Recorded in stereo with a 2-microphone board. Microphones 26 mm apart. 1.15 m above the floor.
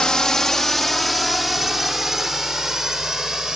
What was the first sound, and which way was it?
A drone, 25° left (ahead or behind).